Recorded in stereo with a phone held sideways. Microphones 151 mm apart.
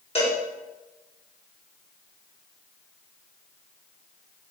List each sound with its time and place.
0.1 s a cowbell: 40° left (ahead or behind), 1.2 m